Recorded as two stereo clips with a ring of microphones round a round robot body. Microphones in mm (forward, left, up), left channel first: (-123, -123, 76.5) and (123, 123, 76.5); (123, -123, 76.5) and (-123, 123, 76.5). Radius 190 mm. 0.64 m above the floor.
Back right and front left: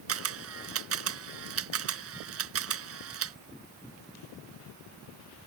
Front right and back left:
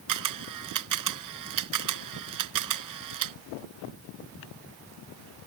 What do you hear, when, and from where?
0.1 s a camera shutter: 95° left